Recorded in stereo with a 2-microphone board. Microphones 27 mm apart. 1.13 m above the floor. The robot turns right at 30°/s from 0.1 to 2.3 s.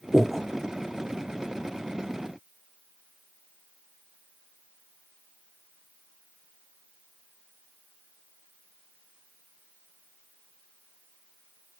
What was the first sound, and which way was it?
Breathing, 10° left (ahead or behind).